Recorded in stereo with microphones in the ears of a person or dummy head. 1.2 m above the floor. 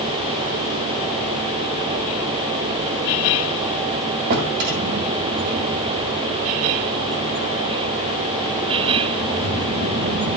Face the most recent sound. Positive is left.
turn(degrees=-50)  # may be behind; listen again after turning